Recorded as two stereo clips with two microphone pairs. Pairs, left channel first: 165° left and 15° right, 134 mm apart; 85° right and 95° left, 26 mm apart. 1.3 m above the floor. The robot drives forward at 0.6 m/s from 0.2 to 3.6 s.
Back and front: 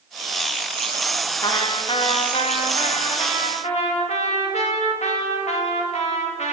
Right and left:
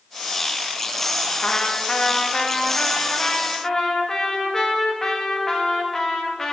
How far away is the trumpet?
About 1.0 m.